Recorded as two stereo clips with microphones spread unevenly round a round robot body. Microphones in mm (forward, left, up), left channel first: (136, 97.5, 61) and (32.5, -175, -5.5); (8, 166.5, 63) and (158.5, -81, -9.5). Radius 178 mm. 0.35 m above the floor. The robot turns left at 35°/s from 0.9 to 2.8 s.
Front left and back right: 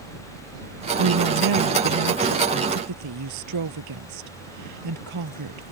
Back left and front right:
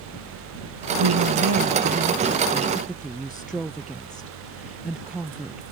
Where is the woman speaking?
85° right; by 5.7 s 150° right.